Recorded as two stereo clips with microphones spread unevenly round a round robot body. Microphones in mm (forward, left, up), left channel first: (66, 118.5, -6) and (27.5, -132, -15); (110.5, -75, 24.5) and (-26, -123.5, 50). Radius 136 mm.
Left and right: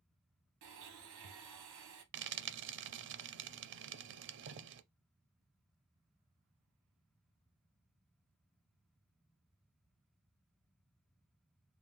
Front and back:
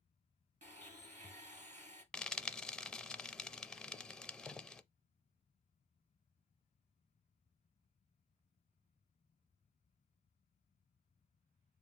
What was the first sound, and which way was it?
A blender, 125° right.